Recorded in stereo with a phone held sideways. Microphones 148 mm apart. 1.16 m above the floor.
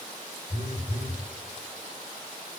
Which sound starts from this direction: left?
A phone buzzing, at 0.5 s.